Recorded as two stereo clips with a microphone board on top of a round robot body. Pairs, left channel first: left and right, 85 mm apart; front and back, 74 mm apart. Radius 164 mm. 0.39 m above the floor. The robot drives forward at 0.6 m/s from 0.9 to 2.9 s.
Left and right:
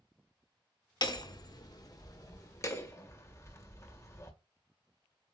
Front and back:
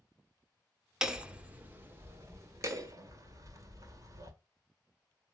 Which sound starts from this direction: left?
Hammering, at 1.0 s.